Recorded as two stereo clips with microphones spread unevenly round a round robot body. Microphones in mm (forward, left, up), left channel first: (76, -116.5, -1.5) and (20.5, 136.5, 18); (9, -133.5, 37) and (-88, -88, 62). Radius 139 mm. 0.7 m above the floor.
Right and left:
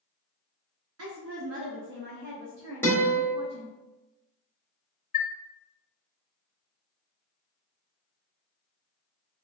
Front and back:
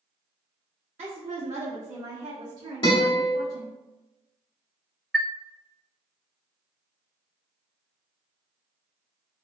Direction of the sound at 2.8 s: Straight ahead.